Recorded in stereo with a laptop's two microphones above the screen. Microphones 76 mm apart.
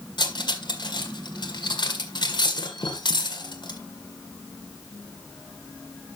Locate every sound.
0.2 s cutlery clinking: 80° left, 1.9 m